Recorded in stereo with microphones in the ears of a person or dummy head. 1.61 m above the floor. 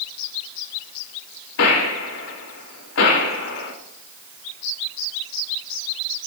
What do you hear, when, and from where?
1.6 s a gunshot: 70° left (ahead or behind), 3 m